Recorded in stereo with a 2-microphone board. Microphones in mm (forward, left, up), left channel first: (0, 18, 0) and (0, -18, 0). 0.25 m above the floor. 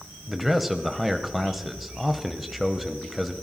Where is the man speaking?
5° right (ahead or behind), 1.0 m.